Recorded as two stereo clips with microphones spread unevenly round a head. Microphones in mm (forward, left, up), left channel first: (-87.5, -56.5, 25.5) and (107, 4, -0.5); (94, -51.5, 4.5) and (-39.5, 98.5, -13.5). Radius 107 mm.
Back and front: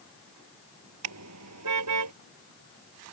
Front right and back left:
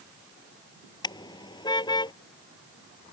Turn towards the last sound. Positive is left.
turn(degrees=20)